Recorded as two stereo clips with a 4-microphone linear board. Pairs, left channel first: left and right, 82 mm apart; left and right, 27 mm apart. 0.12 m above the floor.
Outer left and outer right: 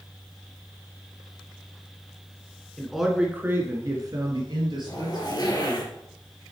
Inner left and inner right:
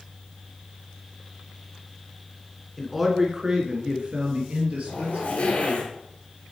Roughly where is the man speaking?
Centre.